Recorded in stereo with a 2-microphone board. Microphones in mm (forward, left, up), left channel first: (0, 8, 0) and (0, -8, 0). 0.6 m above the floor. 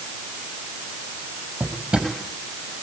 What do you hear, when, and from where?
1.6 s a drawer: 85° right, 6 m